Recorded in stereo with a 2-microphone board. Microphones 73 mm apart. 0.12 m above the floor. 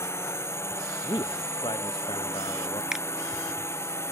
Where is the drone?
35° left (ahead or behind).